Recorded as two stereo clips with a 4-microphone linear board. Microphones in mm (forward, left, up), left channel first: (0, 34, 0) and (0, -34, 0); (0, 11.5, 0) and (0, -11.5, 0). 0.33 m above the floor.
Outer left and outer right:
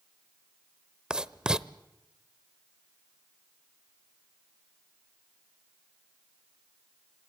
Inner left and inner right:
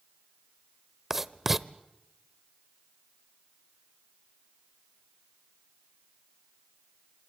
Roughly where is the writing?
Centre.